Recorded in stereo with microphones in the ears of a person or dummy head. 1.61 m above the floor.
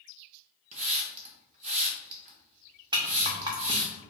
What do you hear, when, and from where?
0.7 s a hiss: 45° right (ahead or behind), 0.8 m
2.9 s a rattle: 15° right (ahead or behind), 0.5 m